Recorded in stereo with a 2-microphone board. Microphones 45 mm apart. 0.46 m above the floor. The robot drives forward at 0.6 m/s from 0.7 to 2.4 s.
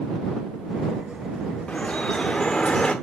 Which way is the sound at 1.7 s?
25° left (ahead or behind).